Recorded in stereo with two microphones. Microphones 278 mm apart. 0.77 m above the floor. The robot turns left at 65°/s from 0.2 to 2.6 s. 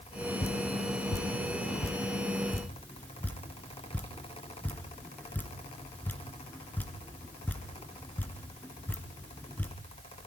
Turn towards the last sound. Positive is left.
turn(degrees=5)  # may be behind; listen again after turning